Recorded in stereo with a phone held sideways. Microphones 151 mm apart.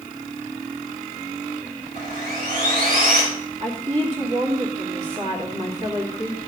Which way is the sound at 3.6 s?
45° right (ahead or behind).